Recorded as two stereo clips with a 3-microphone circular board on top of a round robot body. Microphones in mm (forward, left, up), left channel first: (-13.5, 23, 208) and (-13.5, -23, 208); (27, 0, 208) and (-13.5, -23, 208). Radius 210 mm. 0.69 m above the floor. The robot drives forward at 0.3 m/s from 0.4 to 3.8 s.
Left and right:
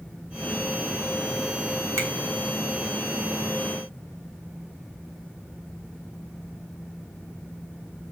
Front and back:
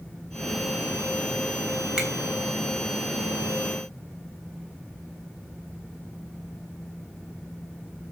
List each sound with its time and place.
2.0 s a finger snap: 70° right, 3 m; by 2.1 s 75° right, 3 m